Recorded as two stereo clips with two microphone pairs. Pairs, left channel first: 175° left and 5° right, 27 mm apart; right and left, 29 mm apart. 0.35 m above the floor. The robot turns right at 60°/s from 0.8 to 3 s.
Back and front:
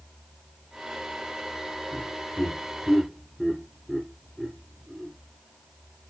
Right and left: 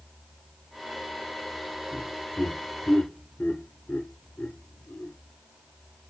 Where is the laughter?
150° right, 4 m; by 5.1 s 85° right, 4 m.